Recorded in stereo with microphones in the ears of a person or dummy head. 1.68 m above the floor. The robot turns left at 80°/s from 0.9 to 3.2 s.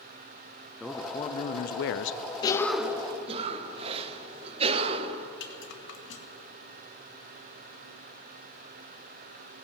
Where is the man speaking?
175° right, 0.6 m; by 2.2 s 80° left, 0.6 m.